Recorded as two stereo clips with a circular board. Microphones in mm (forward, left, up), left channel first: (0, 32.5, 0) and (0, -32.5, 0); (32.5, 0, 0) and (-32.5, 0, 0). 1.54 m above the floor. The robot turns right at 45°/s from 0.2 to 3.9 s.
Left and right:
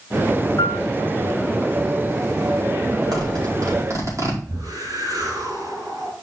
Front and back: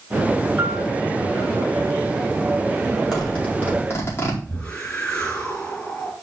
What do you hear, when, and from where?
0.6 s a piano: 120° left, 0.6 m; by 0.9 s 130° left, 0.6 m
3.1 s a zipper: 90° right, 4.5 m; by 4.4 s 55° right, 4.5 m
4.5 s a whoosh: 75° right, 4.5 m